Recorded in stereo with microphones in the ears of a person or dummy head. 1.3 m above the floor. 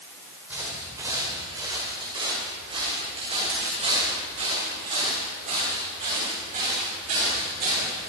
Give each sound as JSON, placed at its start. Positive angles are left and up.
{"t": 0.5, "sound": "footsteps", "side_deg": -10, "distance_m": 5.5}